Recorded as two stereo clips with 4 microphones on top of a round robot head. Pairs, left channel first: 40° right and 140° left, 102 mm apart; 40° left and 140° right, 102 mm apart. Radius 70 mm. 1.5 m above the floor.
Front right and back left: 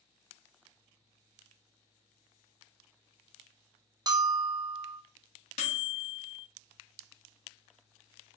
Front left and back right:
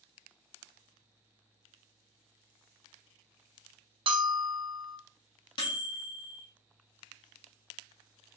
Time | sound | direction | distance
4.1 | a bell | 175° right | 0.6 m
5.6 | a microwave | 10° right | 0.7 m